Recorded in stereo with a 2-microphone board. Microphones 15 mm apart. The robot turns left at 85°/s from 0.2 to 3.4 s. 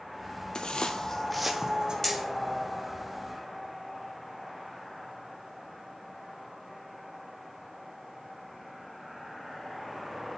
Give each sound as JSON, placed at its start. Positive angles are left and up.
{"t": 0.6, "sound": "footsteps", "side_deg": 45, "distance_m": 0.8}
{"t": 2.0, "sound": "hammering", "side_deg": 20, "distance_m": 2.0}